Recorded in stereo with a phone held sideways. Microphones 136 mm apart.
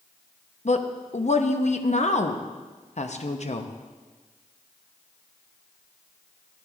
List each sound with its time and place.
0.7 s a woman speaking: 55° left (ahead or behind), 0.7 m